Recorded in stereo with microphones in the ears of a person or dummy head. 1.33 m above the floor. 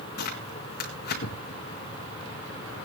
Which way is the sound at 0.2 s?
55° left (ahead or behind).